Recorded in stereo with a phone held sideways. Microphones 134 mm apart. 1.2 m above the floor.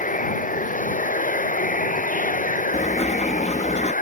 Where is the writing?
55° left (ahead or behind).